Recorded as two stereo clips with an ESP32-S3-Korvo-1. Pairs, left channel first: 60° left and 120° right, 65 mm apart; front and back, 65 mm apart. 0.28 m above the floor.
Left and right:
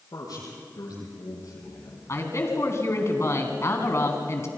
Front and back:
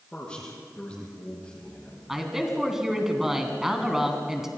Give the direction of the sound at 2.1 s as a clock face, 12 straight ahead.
9 o'clock.